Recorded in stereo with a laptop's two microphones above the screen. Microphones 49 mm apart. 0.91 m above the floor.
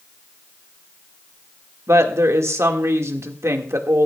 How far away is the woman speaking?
About 2 m.